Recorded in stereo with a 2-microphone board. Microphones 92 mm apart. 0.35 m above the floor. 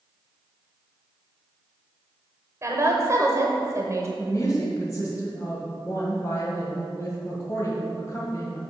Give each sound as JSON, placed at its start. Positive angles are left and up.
{"t": 2.6, "sound": "a woman speaking", "side_deg": -35, "distance_m": 1.0}
{"t": 4.2, "sound": "a woman speaking", "side_deg": 35, "distance_m": 2.0}